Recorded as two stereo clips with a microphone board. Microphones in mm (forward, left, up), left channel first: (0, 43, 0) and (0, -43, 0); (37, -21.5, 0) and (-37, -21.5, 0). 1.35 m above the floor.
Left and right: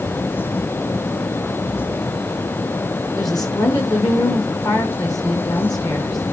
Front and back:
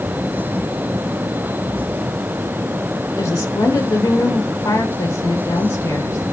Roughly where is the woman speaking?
Ahead left.